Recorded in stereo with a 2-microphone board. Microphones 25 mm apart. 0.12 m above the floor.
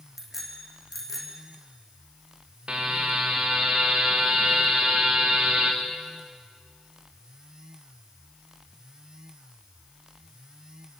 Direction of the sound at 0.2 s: 5° left (ahead or behind).